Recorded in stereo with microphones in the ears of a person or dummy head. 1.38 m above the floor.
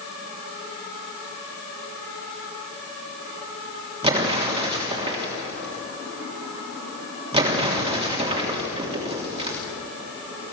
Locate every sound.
4.0 s an explosion: 30° right (ahead or behind), 3 m